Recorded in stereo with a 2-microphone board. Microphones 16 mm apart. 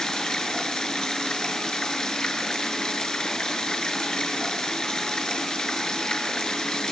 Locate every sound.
0.0 s running water: 55° left (ahead or behind), 7 m